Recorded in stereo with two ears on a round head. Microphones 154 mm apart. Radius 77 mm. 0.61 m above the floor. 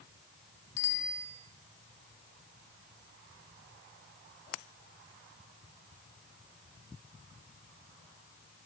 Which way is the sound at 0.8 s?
85° left.